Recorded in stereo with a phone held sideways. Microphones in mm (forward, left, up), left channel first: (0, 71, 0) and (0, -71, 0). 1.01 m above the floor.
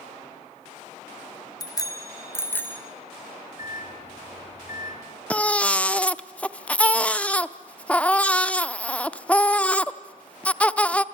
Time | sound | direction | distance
1.6 | a bicycle bell | 30° left (ahead or behind) | 2.5 m
3.6 | a microwave | 80° left | 2.5 m
5.3 | a baby crying | 10° left (ahead or behind) | 0.5 m